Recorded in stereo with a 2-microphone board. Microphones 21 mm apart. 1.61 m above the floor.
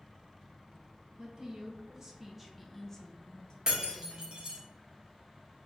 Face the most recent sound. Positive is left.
turn(degrees=-40)  # may be behind; listen again after turning